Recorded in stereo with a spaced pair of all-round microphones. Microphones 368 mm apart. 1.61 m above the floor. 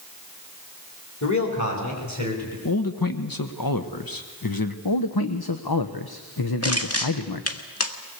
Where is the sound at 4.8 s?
80° left, 1.1 m.